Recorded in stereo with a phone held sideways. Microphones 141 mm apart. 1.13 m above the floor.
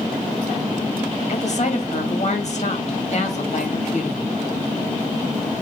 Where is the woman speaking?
55° left (ahead or behind), 1.9 m.